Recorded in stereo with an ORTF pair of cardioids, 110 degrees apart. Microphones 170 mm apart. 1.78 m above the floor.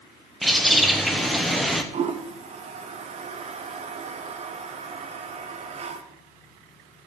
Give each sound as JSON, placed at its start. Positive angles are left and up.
{"t": 0.4, "sound": "a bird", "azimuth_deg": 0, "distance_m": 1.1}
{"t": 1.9, "sound": "a toilet flushing", "azimuth_deg": -35, "distance_m": 1.1}